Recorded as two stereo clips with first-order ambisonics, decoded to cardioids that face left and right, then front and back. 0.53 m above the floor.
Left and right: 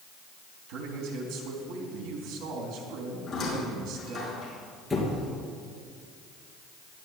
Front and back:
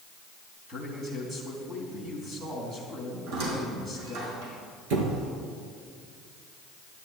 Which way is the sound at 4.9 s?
175° left.